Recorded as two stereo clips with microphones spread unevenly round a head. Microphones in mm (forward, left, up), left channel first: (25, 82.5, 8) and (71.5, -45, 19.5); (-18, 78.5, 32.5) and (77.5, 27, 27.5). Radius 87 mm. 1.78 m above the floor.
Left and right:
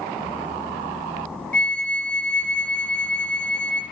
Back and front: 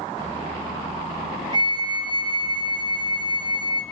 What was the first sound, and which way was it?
A flute, 25° left.